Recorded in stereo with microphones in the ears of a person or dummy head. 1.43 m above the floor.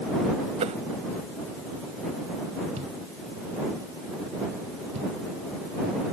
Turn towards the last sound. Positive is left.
turn(degrees=-35)  # may be behind; listen again after turning